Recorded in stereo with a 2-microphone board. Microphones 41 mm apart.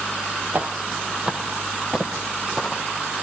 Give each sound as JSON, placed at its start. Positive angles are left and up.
{"t": 0.5, "sound": "footsteps", "side_deg": -40, "distance_m": 1.8}